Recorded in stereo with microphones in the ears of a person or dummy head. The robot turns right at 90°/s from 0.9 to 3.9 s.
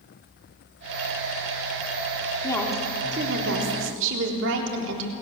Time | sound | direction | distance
2.4 | a woman speaking | 155° left | 3.5 m